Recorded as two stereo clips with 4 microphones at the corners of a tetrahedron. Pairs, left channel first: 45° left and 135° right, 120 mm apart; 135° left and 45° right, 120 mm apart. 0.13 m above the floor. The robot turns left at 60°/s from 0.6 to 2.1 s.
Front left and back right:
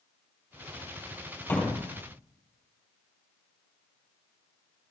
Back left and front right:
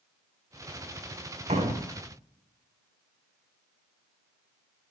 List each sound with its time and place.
1.5 s a door slam: 25° right, 3 m; by 1.9 s 50° right, 3 m